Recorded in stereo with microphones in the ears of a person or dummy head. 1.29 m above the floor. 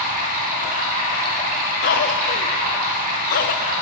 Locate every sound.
0.0 s running water: 45° right (ahead or behind), 2 m
1.8 s a cough: 50° left (ahead or behind), 0.6 m